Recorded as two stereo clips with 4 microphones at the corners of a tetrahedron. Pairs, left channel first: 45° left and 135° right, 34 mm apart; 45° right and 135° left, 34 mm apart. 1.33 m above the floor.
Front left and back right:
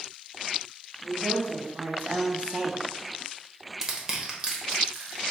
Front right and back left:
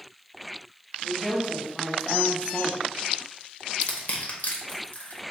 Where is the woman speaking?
145° right, 1.4 m; by 2.8 s 50° right, 0.5 m.